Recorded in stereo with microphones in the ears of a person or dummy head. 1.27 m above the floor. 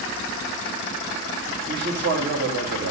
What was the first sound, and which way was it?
A man speaking, 70° right (ahead or behind).